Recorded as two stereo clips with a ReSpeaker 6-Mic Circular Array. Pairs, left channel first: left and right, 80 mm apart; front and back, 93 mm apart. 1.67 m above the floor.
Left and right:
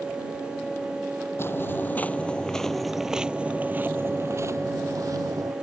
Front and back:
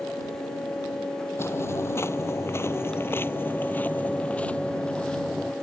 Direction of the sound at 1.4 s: 50° left.